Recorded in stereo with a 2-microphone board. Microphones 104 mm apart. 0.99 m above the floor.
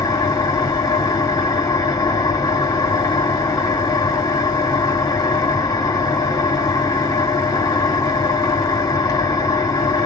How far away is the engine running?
About 2.5 m.